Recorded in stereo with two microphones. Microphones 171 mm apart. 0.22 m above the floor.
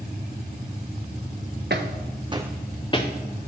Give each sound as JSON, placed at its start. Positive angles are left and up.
{"t": 1.7, "sound": "footsteps", "side_deg": -80, "distance_m": 0.9}